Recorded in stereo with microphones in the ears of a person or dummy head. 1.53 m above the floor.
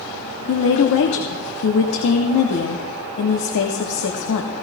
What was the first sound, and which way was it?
A woman speaking, 70° left (ahead or behind).